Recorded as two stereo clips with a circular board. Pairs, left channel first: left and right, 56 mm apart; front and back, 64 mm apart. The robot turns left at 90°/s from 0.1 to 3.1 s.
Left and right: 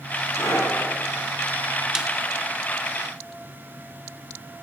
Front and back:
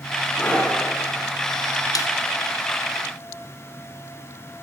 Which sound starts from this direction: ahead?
A snare drum, at 1.9 s.